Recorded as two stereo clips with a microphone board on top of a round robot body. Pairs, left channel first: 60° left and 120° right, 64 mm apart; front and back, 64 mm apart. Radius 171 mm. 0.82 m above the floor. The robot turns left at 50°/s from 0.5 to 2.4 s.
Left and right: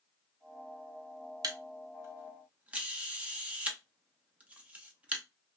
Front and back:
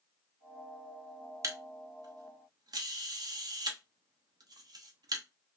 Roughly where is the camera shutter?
Behind right.